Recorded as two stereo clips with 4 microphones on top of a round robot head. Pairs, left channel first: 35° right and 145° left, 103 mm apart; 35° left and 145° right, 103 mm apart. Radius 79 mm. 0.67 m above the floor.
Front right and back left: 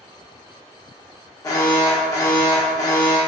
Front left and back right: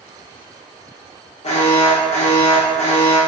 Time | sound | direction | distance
1.4 | an alarm | 20° left | 0.9 m